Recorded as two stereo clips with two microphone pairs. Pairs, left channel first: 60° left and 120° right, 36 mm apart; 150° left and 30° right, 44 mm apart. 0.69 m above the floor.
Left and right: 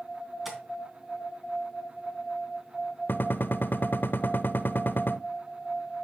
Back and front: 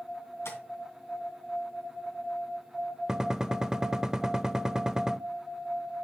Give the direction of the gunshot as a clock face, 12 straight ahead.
10 o'clock.